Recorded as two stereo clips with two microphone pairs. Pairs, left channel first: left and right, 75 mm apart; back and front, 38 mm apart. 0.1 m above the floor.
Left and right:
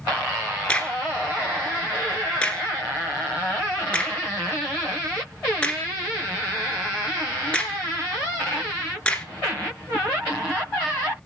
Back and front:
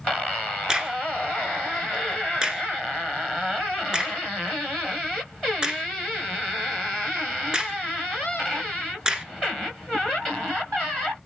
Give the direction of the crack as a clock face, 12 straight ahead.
11 o'clock.